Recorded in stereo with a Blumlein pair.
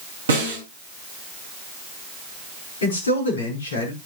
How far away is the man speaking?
About 5 m.